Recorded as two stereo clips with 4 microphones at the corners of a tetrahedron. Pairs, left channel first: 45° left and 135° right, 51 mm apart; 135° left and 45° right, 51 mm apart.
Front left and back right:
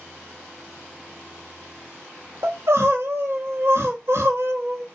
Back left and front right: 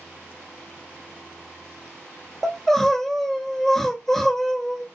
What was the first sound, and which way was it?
Crying, 145° right.